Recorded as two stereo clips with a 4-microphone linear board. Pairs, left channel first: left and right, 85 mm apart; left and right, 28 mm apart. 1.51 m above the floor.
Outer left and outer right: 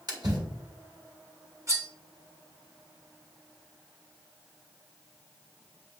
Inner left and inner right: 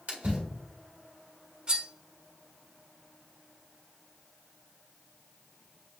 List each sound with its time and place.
0.1 s a splash: 50° right (ahead or behind), 1.9 m
1.7 s cutlery clinking: 35° right (ahead or behind), 1.2 m